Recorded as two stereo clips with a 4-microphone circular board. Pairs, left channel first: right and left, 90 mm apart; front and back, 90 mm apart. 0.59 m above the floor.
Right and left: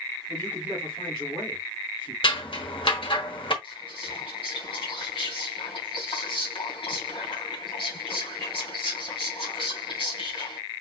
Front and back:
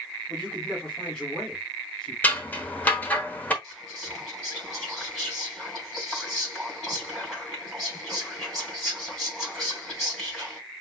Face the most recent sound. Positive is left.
turn(degrees=-90)